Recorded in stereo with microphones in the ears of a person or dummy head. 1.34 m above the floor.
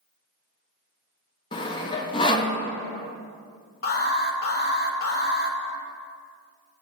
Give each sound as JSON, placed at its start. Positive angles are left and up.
{"t": 1.5, "sound": "sawing", "side_deg": 25, "distance_m": 0.7}
{"t": 3.8, "sound": "an alarm", "side_deg": 50, "distance_m": 1.0}